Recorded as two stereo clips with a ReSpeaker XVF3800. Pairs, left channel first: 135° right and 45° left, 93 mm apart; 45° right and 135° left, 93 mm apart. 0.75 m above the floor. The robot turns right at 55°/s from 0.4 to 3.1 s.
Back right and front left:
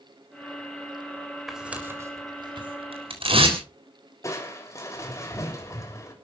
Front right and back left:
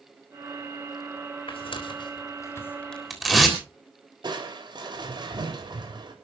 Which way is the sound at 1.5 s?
45° right.